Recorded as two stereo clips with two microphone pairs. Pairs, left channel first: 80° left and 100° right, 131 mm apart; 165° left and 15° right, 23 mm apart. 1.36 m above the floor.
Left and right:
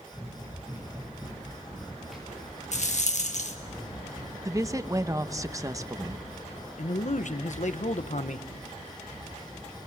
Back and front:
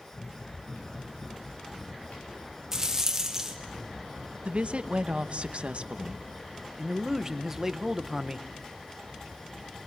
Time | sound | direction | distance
0.1 | running footsteps | 170° right | 8 m
2.7 | a rattle | 55° left | 1.7 m
4.5 | a woman speaking | 35° right | 0.9 m
6.8 | a man speaking | 60° left | 1.1 m